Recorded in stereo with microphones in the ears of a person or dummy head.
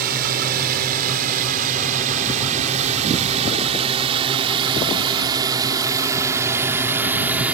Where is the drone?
50° right (ahead or behind); by 7.5 s 10° right (ahead or behind).